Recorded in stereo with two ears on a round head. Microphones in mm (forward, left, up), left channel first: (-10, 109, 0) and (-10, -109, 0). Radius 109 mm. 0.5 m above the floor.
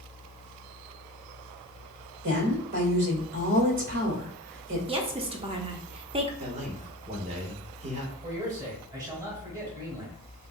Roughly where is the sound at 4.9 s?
Right.